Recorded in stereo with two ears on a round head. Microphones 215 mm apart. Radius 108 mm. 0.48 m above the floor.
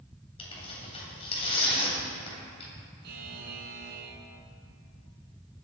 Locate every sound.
0.4 s tearing paper: 25° left (ahead or behind), 2.5 m
3.0 s a buzzer: 45° right (ahead or behind), 2.5 m